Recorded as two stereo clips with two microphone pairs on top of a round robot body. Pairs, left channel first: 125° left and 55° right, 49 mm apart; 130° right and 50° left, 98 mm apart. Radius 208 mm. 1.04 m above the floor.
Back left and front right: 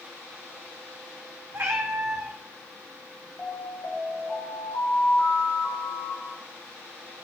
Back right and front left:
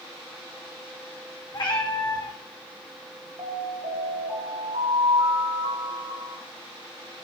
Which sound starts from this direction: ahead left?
An alarm, at 3.4 s.